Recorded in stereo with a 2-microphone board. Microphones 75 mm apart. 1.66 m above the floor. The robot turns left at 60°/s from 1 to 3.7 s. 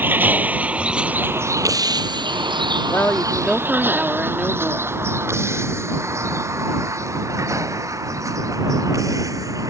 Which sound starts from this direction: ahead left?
A woman speaking, at 2.9 s.